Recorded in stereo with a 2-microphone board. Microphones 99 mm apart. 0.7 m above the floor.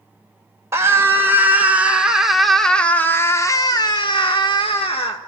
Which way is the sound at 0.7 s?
30° right (ahead or behind).